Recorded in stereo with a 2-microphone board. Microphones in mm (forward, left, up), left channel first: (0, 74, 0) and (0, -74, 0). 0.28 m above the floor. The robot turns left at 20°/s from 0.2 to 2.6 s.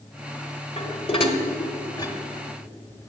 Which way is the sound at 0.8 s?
45° left (ahead or behind).